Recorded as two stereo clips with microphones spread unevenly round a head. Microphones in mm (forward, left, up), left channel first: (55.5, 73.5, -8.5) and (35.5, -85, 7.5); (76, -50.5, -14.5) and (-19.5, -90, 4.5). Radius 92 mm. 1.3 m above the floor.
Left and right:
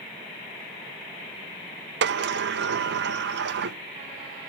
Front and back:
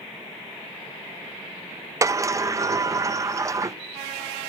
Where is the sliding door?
90° right, 0.6 m.